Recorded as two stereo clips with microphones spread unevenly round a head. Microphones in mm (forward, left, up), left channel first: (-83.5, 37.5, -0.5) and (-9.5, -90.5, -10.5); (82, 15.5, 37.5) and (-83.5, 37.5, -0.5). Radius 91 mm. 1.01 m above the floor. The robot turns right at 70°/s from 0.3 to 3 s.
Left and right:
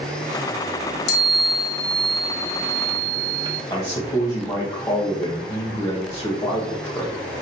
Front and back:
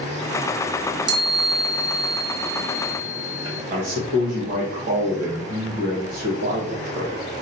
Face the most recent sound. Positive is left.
turn(degrees=-170)